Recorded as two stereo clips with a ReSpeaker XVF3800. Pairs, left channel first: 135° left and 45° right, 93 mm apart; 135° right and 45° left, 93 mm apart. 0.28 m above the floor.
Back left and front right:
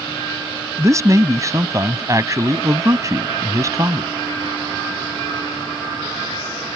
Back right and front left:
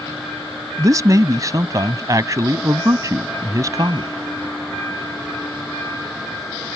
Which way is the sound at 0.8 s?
Straight ahead.